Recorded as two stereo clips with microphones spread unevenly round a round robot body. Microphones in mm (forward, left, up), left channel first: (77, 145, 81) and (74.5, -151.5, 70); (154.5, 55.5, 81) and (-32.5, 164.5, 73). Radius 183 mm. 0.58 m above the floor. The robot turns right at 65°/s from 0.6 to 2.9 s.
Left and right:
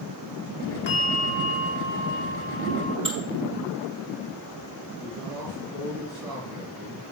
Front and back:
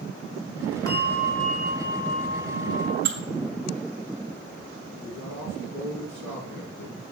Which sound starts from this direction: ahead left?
A bell, at 0.9 s.